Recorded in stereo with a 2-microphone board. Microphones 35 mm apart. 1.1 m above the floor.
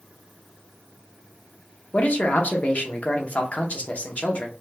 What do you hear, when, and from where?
1.9 s a man speaking: 45° left (ahead or behind), 0.8 m